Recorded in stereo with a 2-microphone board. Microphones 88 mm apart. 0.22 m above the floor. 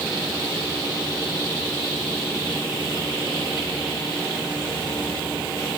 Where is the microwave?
No microwave in this recording.